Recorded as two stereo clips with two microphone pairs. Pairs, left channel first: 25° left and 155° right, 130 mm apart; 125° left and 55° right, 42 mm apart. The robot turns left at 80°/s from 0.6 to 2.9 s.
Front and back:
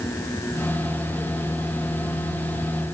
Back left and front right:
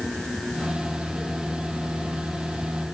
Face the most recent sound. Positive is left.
No sound to turn to.